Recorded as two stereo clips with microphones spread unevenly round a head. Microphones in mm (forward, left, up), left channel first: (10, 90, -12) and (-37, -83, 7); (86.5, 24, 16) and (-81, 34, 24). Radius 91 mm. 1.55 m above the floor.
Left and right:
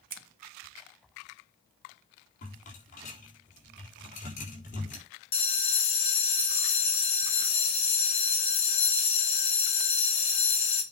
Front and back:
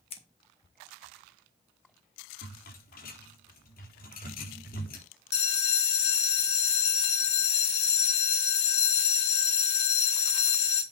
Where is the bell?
15° left, 2 m.